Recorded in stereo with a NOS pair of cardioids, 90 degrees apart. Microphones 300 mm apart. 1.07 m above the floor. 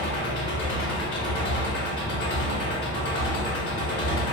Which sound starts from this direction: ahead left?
An engine running, at 0.0 s.